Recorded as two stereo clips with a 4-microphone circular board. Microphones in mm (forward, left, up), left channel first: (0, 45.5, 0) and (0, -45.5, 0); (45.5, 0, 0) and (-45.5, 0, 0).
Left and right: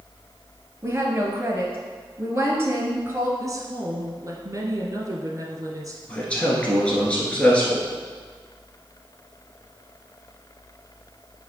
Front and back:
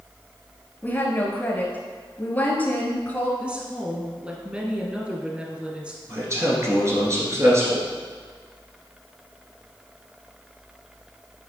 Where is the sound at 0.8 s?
55° right, 1.3 m.